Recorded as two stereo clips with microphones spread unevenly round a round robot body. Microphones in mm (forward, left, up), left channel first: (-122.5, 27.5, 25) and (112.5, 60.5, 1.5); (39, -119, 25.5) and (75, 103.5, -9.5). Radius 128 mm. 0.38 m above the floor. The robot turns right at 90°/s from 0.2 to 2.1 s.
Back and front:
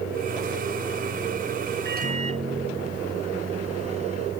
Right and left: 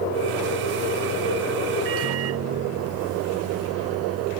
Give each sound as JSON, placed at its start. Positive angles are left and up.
{"t": 1.9, "sound": "a microwave", "azimuth_deg": 50}